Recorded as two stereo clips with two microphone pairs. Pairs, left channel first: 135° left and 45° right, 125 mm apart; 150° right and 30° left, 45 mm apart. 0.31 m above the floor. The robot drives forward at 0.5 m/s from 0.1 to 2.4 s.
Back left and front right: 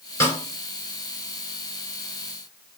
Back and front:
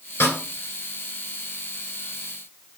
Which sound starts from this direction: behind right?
A snare drum, at 0.2 s.